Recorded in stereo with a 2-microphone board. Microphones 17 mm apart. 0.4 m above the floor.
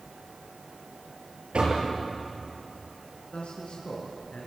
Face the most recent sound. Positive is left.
turn(degrees=75)  # may be behind; listen again after turning